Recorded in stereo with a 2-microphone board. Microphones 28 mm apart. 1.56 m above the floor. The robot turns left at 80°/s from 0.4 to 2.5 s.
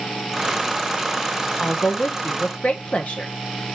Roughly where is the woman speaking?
Behind left.